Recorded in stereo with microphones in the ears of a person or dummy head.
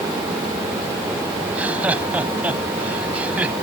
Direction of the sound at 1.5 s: 5° right (ahead or behind).